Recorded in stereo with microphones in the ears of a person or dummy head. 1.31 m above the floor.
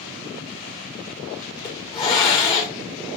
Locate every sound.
1.6 s a hiss: 25° left (ahead or behind), 1.2 m